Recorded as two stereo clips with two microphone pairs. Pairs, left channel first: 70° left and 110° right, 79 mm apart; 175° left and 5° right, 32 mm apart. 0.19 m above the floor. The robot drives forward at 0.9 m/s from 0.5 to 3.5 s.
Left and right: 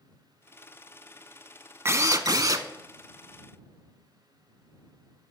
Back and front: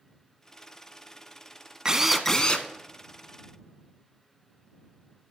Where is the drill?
65° right, 0.6 m; by 2.7 s 140° right, 0.8 m.